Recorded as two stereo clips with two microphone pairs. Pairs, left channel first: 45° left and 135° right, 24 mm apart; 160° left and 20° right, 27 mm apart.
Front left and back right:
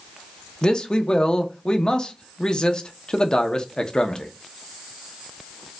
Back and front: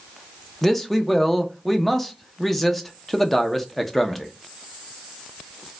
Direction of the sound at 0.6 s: 80° left.